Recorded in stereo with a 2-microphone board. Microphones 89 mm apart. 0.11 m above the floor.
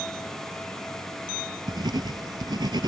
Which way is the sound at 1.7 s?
65° right (ahead or behind).